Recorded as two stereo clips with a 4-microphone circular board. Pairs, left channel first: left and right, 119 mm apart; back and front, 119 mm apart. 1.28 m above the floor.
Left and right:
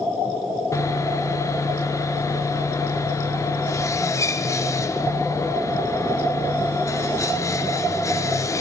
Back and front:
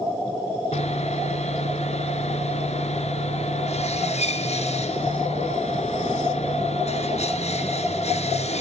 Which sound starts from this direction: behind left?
Sawing, at 0.7 s.